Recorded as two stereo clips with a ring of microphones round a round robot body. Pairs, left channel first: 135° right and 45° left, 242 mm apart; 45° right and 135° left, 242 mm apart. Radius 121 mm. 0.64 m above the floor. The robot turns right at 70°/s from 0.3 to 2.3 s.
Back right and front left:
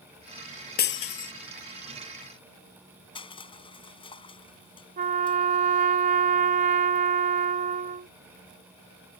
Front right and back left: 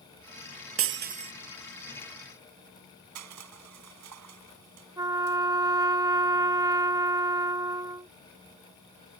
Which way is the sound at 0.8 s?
170° left.